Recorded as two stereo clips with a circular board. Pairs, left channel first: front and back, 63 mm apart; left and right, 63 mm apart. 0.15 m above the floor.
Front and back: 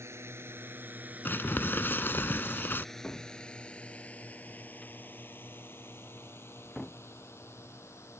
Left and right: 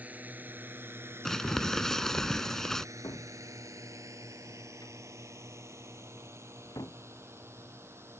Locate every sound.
0.0 s a drone: 150° right; by 8.2 s 40° right
1.2 s crumpling: 10° left
3.0 s a cupboard door: 70° left